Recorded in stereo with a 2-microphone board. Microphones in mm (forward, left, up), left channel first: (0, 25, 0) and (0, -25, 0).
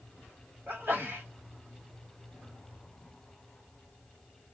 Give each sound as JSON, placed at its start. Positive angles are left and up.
{"t": 0.7, "sound": "a sneeze", "side_deg": -50, "distance_m": 1.5}